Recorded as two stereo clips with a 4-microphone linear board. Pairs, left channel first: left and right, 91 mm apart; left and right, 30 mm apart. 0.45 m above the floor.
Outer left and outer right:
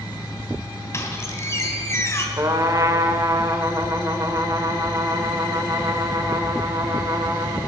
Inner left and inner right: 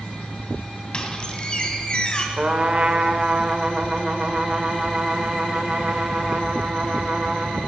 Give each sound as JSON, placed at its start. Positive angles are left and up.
{"t": 0.9, "sound": "a squeak", "side_deg": 30, "distance_m": 2.0}
{"t": 2.4, "sound": "a trumpet", "side_deg": -40, "distance_m": 1.3}